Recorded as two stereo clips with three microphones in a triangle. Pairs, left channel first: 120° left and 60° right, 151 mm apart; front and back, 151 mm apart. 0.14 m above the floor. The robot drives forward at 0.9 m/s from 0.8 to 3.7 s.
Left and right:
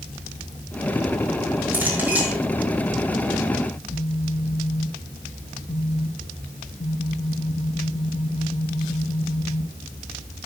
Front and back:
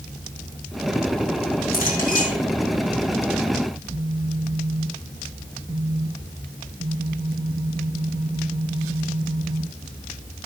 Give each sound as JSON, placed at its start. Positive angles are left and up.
{"t": 1.7, "sound": "a clink", "azimuth_deg": 20, "distance_m": 5.0}
{"t": 3.7, "sound": "a phone buzzing", "azimuth_deg": 155, "distance_m": 2.5}